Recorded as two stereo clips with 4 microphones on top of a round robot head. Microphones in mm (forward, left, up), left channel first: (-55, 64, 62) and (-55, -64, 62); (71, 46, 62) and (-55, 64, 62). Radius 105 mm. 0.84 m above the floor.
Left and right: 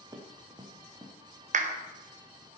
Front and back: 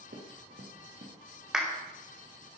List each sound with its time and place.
0.1 s running footsteps: 150° right, 4 m
1.5 s a clap: 105° right, 1.9 m